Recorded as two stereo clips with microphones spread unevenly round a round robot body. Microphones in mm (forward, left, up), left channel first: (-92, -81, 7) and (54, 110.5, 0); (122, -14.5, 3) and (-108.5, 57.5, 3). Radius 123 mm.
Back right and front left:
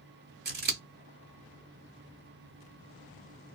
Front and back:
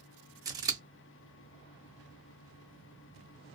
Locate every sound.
0.5 s scissors: 90° left, 1.2 m